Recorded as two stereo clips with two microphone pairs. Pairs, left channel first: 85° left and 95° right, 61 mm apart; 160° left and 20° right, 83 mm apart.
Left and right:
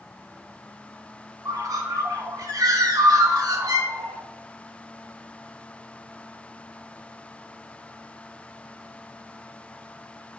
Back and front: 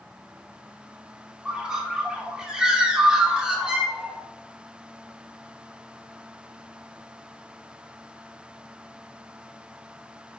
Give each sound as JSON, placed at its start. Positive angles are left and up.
{"t": 1.4, "sound": "a bird", "azimuth_deg": -100, "distance_m": 0.6}